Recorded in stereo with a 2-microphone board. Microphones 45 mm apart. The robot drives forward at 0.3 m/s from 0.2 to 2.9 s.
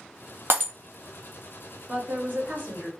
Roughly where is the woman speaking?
Right.